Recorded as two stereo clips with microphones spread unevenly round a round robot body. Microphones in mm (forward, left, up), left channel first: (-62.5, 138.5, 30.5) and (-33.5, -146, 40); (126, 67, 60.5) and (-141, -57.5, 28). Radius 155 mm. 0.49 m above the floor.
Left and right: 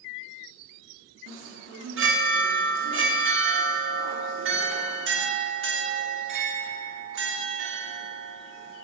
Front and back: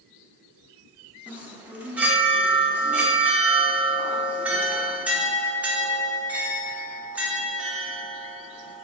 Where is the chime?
80° right, 1.5 m.